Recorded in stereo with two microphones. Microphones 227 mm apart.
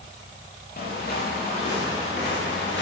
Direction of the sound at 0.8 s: 40° left (ahead or behind).